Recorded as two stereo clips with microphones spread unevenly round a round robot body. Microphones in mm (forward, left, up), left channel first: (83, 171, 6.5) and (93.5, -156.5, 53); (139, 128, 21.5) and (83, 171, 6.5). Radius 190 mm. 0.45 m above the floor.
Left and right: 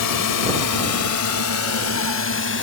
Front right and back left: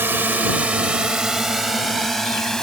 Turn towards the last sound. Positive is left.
turn(degrees=45)